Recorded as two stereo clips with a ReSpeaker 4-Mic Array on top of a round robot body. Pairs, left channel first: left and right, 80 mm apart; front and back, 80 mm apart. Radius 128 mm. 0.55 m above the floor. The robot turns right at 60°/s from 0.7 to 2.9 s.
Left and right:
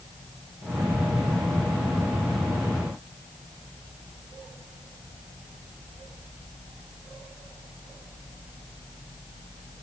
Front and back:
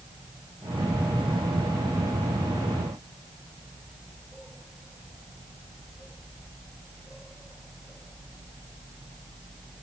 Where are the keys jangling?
No keys jangling in this recording.